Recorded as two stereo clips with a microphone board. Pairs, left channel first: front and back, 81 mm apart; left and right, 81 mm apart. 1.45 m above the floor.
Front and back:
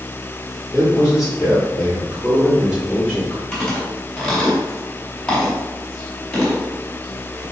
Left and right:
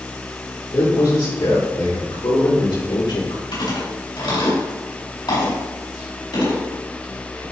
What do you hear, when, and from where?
0.7 s a man speaking: 100° left, 4 m
3.5 s chewing: 85° left, 4 m